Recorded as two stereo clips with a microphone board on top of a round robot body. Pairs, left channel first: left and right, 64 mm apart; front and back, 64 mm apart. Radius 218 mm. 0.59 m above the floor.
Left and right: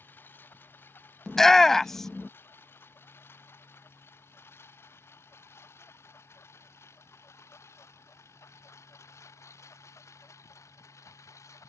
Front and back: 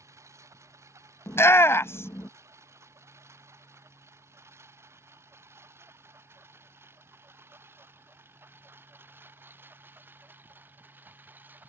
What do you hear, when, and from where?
0.0 s a lawn mower: 145° left; by 11.7 s 125° left
1.3 s a shout: 10° left